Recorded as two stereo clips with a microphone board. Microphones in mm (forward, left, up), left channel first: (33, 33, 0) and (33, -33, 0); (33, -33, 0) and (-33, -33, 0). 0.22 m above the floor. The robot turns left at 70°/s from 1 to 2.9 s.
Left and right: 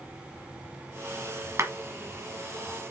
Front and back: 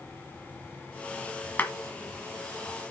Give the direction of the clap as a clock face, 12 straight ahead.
2 o'clock.